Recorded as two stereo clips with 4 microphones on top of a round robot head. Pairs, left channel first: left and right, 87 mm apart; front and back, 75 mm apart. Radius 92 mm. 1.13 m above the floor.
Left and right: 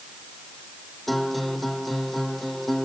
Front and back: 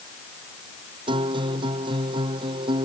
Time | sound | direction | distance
1.1 | a guitar | straight behind | ?